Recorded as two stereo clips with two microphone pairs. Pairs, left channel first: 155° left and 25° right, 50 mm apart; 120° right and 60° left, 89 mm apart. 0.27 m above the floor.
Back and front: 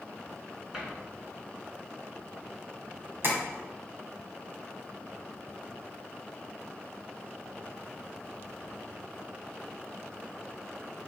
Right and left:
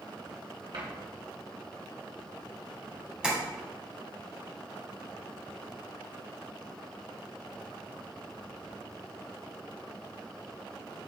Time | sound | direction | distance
0.7 | a cupboard door | 50° left | 2.5 m
3.2 | tapping | 15° right | 2 m